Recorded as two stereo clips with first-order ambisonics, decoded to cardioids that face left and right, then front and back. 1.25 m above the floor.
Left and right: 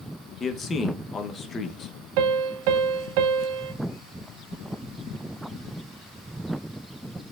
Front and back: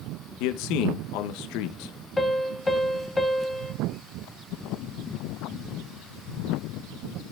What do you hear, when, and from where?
0.4 s a man speaking: 20° left, 0.8 m
2.2 s a piano: 85° right, 0.6 m